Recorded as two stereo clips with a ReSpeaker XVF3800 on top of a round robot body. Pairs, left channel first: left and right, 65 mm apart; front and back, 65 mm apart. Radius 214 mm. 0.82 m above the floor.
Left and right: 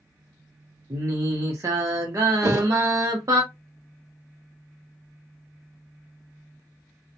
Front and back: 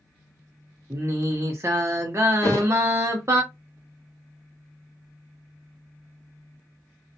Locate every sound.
0.9 s singing: 130° right, 0.7 m
2.4 s a thud: 50° right, 0.7 m